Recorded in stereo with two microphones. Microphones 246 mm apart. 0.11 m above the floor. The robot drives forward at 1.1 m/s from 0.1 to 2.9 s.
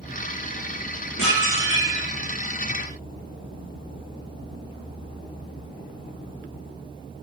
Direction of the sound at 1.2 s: 70° left (ahead or behind).